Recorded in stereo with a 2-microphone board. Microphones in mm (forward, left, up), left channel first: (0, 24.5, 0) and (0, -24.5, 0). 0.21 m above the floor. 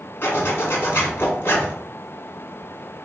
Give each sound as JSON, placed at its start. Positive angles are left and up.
{"t": 0.2, "sound": "a zipper", "side_deg": 50, "distance_m": 1.5}